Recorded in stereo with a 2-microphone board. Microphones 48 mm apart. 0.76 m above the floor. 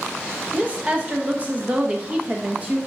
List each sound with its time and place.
0.5 s a woman speaking: 25° right (ahead or behind), 0.8 m